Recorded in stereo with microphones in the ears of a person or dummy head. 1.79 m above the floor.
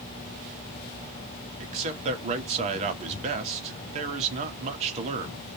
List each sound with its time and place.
1.6 s a man speaking: 35° right (ahead or behind), 0.8 m